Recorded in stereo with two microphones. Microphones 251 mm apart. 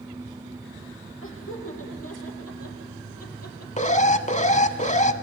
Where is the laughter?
55° left (ahead or behind), 7 m; by 3.7 s 75° left (ahead or behind), 5 m.